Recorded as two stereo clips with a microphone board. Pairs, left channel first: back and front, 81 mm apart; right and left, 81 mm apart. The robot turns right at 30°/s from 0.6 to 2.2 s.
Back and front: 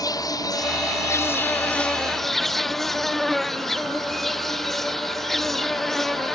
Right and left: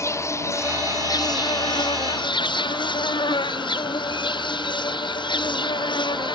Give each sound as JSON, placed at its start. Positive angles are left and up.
{"t": 0.0, "sound": "an insect", "azimuth_deg": -140}